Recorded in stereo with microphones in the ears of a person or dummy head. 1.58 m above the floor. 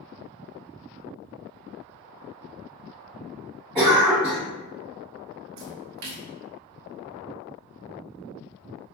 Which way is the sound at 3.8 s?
15° right (ahead or behind).